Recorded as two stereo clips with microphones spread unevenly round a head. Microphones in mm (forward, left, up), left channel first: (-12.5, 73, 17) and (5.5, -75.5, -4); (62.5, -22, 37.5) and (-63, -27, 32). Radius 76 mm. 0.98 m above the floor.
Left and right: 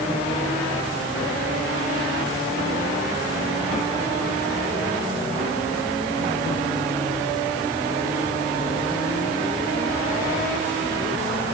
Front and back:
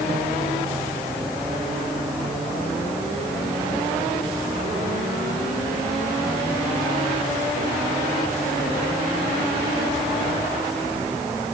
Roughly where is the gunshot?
No gunshot in this recording.